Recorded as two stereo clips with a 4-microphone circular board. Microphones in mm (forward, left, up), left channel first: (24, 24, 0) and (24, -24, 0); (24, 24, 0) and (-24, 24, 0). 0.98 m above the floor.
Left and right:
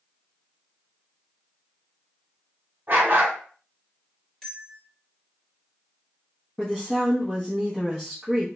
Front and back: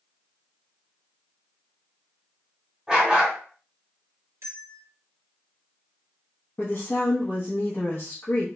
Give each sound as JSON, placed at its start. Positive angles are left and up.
{"t": 2.9, "sound": "a dog barking", "azimuth_deg": -115, "distance_m": 0.9}
{"t": 4.4, "sound": "a bell", "azimuth_deg": 170, "distance_m": 1.2}
{"t": 6.6, "sound": "a woman speaking", "azimuth_deg": -10, "distance_m": 0.7}